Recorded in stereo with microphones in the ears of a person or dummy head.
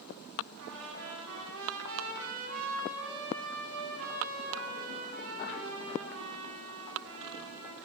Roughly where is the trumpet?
Right.